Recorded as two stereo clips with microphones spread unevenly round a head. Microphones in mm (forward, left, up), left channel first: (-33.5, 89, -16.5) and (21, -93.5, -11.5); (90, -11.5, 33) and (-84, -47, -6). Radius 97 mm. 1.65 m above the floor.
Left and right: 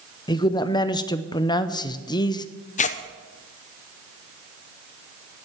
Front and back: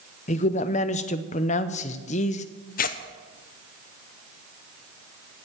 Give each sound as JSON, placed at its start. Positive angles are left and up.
{"t": 0.3, "sound": "a man speaking", "azimuth_deg": 40, "distance_m": 0.7}
{"t": 2.8, "sound": "tearing paper", "azimuth_deg": 55, "distance_m": 0.7}